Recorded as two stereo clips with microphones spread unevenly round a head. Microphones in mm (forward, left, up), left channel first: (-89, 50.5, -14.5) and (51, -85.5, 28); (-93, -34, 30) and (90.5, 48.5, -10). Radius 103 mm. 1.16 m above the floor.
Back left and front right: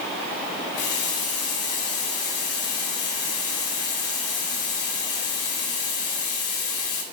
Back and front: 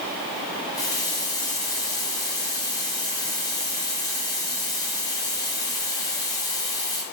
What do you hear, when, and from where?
0.7 s a running tap: 130° left, 4 m